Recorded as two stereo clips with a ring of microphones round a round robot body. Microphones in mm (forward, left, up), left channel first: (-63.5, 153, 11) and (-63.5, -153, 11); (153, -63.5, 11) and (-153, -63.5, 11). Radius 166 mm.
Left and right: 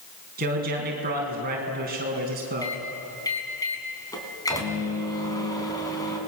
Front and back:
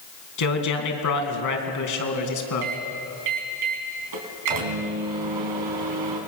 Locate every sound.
0.4 s a man speaking: 25° right, 4 m
2.6 s a microwave: 170° left, 3.5 m